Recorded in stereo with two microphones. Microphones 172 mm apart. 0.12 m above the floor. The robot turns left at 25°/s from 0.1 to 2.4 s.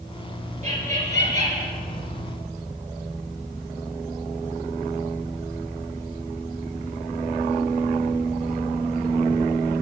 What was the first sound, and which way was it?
Laughter, 45° right (ahead or behind).